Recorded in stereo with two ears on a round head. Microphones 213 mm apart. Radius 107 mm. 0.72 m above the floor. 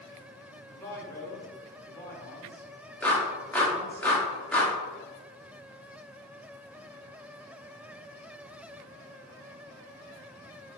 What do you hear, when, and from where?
0.7 s a man speaking: 15° left (ahead or behind), 2 m
3.0 s a clap: 5° left (ahead or behind), 1.6 m